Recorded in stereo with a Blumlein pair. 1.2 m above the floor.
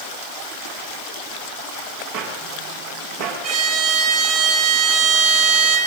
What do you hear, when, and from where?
2.1 s footsteps: 50° right, 8.5 m
3.4 s a violin: 45° right, 8 m